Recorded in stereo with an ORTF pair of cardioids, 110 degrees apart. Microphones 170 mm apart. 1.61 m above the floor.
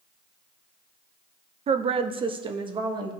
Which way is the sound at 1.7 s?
35° right.